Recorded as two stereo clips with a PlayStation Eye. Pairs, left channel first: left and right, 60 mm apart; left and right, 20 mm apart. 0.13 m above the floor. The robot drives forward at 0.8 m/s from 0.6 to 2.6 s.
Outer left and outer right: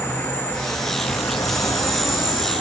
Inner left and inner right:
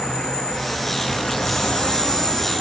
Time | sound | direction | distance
0.0 | an insect | 30° left (ahead or behind) | 1.0 m